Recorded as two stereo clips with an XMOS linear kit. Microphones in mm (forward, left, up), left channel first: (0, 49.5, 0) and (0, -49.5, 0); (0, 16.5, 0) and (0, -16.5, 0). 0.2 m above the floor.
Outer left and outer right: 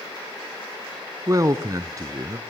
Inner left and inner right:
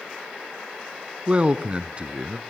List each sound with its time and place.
1.3 s a man speaking: 35° right (ahead or behind), 1.5 m